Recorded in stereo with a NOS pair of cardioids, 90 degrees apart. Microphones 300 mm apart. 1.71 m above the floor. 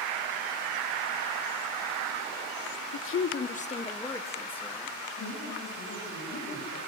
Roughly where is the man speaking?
Ahead left.